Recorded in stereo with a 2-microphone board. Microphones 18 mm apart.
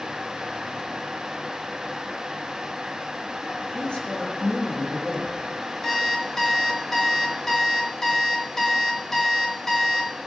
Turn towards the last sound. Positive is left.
turn(degrees=20)  # may be behind; listen again after turning